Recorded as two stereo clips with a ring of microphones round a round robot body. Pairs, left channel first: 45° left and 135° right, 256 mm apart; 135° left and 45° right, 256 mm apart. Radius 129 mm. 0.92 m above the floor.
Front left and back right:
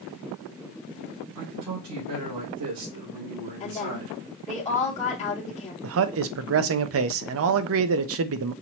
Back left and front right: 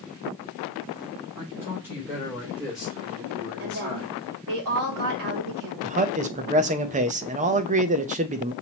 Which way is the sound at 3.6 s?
20° right.